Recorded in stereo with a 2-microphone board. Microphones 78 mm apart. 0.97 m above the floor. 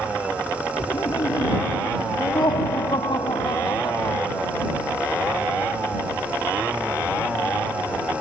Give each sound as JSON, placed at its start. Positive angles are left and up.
{"t": 0.8, "sound": "laughter", "side_deg": 70}